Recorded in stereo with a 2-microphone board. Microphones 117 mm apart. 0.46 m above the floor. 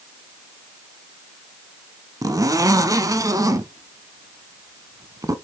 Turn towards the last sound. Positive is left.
turn(degrees=-30)  # may be behind; listen again after turning